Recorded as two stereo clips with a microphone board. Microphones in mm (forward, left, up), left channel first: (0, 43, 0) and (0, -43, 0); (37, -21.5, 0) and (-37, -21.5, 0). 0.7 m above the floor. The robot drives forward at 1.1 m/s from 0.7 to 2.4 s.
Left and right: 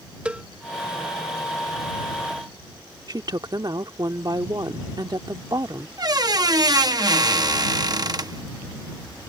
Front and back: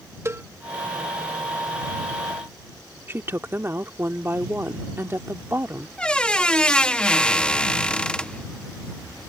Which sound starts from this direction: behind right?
A woman speaking, at 3.1 s.